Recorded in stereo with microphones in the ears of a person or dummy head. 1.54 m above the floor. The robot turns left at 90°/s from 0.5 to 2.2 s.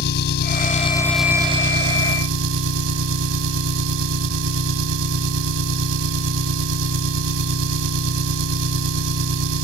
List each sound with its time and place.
0.0 s an engine running: 60° left; by 9.7 s 90° right